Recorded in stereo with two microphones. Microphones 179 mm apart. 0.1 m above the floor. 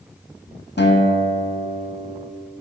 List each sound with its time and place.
0.8 s a guitar: 75° left (ahead or behind), 1.2 m